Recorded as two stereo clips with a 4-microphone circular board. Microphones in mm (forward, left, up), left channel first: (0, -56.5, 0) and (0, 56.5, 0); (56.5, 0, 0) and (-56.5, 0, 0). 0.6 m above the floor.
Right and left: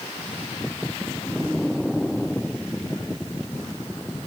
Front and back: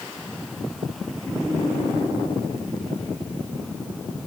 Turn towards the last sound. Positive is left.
No sound to turn to.